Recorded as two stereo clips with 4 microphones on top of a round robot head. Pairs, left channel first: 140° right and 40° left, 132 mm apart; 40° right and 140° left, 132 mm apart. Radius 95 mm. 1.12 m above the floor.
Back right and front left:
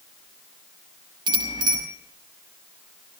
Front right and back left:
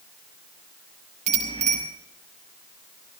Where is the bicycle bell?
100° left, 5.5 m.